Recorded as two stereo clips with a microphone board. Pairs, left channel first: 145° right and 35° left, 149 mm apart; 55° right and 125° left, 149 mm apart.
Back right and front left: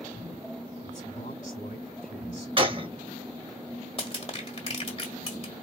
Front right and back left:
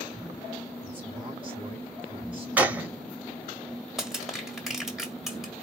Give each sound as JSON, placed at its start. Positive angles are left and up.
{"t": 0.8, "sound": "a man speaking", "azimuth_deg": 180, "distance_m": 3.5}
{"t": 2.6, "sound": "a gunshot", "azimuth_deg": 50, "distance_m": 1.1}
{"t": 4.0, "sound": "crushing", "azimuth_deg": -150, "distance_m": 1.8}